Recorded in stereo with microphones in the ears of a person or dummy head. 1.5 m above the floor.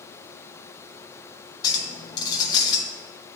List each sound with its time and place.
1.6 s a clink: 25° left (ahead or behind), 0.8 m